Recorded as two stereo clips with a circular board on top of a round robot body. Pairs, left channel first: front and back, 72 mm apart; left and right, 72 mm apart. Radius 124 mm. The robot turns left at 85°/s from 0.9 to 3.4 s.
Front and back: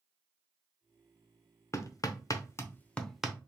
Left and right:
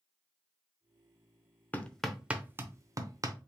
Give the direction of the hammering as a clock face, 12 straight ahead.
11 o'clock.